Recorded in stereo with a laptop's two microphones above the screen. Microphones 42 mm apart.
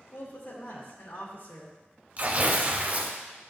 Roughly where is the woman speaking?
Left.